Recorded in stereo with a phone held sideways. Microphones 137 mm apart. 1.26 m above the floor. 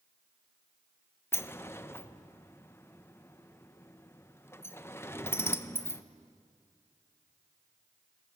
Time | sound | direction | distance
1.3 | a sliding door | 20° left (ahead or behind) | 0.7 m